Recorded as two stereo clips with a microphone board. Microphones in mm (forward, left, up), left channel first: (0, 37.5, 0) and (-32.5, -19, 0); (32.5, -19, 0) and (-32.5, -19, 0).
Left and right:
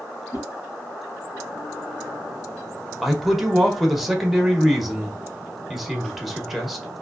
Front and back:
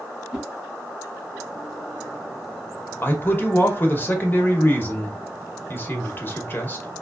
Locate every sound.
0.3 s a whoosh: 105° left, 1.0 m
3.0 s a man speaking: 35° right, 0.9 m